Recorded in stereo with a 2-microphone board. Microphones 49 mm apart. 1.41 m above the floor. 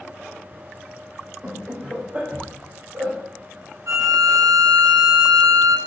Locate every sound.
1.4 s laughter: 5° right (ahead or behind), 1.4 m; by 3.1 s 50° right (ahead or behind), 1.6 m
3.9 s a violin: 80° right, 0.6 m